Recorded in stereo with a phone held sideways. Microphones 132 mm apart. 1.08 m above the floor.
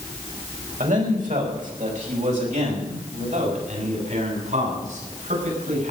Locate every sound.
0.8 s a man speaking: 70° right (ahead or behind), 4.5 m; by 5.9 s 65° right (ahead or behind), 8.5 m